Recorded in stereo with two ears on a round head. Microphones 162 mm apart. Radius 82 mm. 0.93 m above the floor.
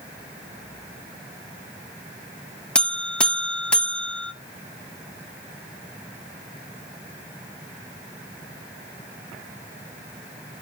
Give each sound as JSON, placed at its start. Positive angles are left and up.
{"t": 2.8, "sound": "a buzzer", "side_deg": 5, "distance_m": 0.8}